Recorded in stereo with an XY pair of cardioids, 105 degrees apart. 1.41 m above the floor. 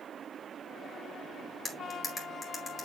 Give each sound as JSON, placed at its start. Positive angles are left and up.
{"t": 1.6, "sound": "cutlery clinking", "azimuth_deg": 25, "distance_m": 2.5}